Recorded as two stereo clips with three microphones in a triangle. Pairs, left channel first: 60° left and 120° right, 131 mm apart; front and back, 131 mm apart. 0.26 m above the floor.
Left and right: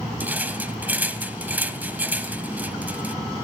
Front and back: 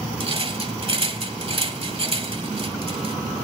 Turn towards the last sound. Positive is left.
turn(degrees=170)